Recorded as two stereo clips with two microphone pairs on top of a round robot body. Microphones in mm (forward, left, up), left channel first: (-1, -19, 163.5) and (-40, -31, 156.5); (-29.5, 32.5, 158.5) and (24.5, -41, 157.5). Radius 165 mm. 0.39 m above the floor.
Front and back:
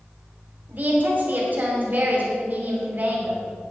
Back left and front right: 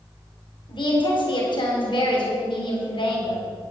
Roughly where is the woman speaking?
Behind left.